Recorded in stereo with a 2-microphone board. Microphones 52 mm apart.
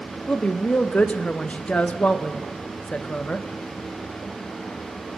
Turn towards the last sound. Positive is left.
turn(degrees=25)  # may be behind; listen again after turning